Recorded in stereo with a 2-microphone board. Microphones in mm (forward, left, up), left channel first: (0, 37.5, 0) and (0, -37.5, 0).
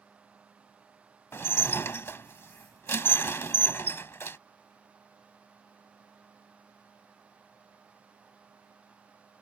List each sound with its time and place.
1.3 s dishes clattering: 35° left (ahead or behind)